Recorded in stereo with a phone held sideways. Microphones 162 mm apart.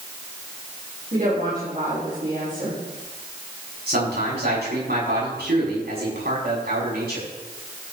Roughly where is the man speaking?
Right.